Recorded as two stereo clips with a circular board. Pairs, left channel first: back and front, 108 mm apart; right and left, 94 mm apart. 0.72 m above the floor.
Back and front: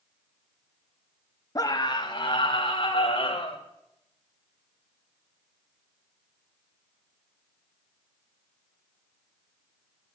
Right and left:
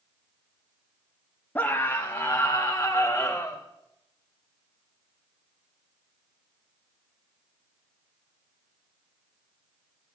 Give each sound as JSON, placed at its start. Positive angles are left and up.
{"t": 1.6, "sound": "a scream", "azimuth_deg": -150, "distance_m": 1.0}